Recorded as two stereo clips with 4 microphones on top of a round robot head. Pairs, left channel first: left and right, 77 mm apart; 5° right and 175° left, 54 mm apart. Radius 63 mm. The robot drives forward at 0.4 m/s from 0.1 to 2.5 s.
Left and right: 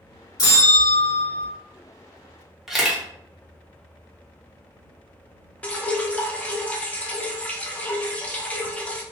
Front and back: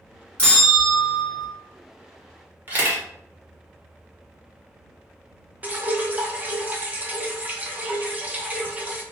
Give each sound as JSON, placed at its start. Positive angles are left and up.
{"t": 0.4, "sound": "a bell", "azimuth_deg": 60, "distance_m": 1.4}
{"t": 2.7, "sound": "a camera shutter", "azimuth_deg": -175, "distance_m": 1.0}
{"t": 5.6, "sound": "dripping", "azimuth_deg": 145, "distance_m": 0.6}